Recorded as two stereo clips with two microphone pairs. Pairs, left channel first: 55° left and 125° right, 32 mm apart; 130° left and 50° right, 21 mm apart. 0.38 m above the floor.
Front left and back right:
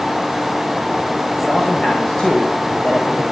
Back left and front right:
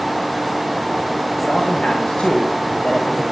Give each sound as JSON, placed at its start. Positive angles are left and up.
{"t": 1.4, "sound": "a man speaking", "azimuth_deg": 120, "distance_m": 2.0}